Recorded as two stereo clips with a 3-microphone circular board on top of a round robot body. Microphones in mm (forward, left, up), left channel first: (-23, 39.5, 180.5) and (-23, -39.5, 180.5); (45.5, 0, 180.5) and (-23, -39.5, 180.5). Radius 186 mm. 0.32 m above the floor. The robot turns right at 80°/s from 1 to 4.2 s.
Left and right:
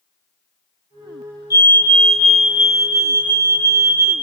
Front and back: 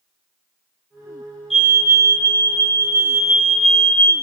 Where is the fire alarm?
125° left, 3.5 m; by 4.1 s 25° right, 3.5 m.